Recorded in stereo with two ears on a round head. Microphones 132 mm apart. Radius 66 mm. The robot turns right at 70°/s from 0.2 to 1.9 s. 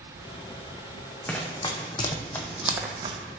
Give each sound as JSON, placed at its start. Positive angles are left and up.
{"t": 1.3, "sound": "running footsteps", "side_deg": 15, "distance_m": 1.4}